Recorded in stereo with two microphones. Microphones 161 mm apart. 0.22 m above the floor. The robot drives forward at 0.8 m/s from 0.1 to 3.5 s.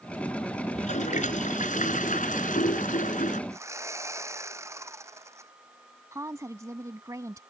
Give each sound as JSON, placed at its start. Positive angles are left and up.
{"t": 0.7, "sound": "a toilet flushing", "side_deg": 55}
{"t": 3.5, "sound": "sawing", "side_deg": -20}
{"t": 6.1, "sound": "a woman speaking", "side_deg": -20}